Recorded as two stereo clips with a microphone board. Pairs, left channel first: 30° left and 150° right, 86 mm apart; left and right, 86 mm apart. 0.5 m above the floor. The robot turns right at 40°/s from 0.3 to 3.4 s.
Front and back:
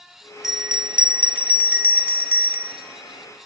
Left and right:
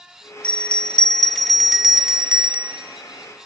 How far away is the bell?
About 0.6 m.